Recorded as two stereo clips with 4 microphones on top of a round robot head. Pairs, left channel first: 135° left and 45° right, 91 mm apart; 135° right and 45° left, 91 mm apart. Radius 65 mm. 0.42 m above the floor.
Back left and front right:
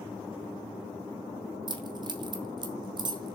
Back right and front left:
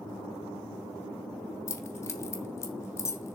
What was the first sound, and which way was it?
Keys jangling, 75° right.